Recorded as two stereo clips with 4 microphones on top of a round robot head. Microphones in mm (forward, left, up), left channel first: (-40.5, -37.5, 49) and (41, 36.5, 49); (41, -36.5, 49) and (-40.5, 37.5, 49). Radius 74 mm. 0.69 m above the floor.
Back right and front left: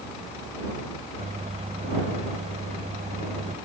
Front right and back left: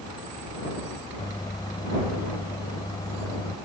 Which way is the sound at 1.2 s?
15° left.